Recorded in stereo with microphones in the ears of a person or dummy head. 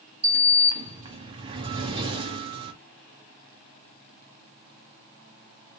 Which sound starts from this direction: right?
A sliding door, at 0.2 s.